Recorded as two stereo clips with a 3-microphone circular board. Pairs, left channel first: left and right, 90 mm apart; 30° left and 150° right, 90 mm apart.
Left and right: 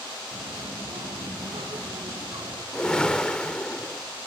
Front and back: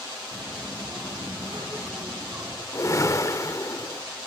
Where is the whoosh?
15° left, 1.6 m.